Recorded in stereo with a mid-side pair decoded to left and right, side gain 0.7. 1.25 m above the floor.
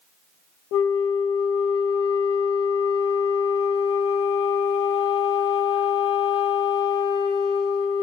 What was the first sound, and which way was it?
A flute, 70° left.